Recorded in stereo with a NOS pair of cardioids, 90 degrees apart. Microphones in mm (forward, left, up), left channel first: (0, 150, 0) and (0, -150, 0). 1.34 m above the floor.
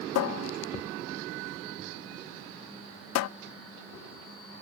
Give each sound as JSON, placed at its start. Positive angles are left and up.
{"t": 0.1, "sound": "a cupboard door", "azimuth_deg": 60, "distance_m": 0.5}